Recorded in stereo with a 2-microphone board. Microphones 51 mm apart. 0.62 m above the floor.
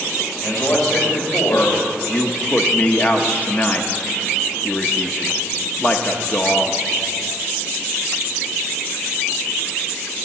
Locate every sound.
0.4 s a man speaking: 70° left (ahead or behind), 3 m
2.1 s a man speaking: 30° left (ahead or behind), 0.7 m